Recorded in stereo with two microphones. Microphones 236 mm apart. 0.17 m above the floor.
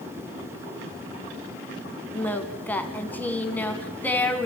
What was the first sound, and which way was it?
Singing, 5° left (ahead or behind).